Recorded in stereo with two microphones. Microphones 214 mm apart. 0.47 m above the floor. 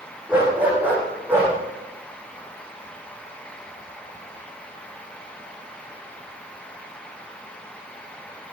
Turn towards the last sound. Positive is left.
turn(degrees=-10)  # may be behind; listen again after turning